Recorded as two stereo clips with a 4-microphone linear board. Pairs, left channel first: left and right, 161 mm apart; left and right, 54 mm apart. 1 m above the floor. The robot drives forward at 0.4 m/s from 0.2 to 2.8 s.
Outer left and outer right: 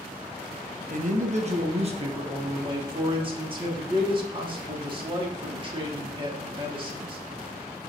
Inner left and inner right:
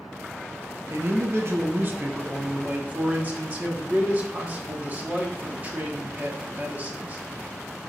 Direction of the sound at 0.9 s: 55° right (ahead or behind).